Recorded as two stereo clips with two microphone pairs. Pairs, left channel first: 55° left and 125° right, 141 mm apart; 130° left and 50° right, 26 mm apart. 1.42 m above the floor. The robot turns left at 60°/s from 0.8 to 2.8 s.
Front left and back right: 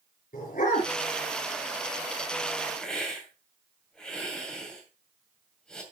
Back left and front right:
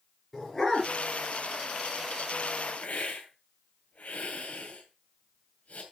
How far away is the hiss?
About 2.5 m.